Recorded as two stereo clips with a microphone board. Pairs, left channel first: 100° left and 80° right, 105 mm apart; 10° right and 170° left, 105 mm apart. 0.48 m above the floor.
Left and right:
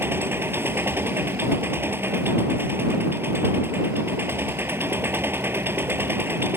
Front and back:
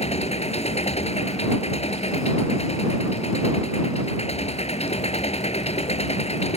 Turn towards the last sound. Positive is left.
turn(degrees=-10)